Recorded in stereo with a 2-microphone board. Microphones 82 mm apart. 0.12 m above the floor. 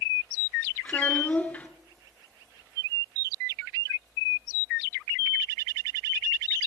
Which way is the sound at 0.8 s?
20° left (ahead or behind).